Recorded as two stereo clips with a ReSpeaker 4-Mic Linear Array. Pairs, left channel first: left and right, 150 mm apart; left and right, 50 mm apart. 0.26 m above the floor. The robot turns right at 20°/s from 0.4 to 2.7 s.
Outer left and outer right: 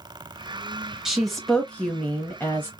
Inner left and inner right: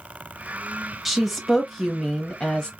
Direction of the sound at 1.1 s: 5° right.